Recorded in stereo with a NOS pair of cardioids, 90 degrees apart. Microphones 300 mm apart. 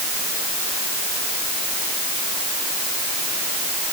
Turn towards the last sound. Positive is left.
No sound to turn to.